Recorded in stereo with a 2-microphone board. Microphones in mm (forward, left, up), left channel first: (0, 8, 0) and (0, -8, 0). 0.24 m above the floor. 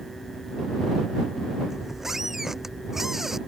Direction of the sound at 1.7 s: 30° right (ahead or behind).